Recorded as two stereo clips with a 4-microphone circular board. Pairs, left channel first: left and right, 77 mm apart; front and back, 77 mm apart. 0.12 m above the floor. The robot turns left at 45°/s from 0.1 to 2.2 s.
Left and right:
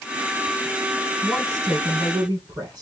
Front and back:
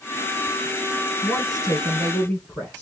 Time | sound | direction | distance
1.2 | a woman speaking | 20° right | 3 m